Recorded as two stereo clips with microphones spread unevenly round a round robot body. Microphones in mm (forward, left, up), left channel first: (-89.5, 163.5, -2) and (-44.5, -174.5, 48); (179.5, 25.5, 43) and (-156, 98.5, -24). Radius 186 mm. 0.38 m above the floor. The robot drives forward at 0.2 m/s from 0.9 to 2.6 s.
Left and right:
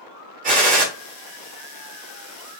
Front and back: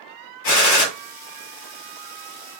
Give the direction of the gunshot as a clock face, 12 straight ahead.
1 o'clock.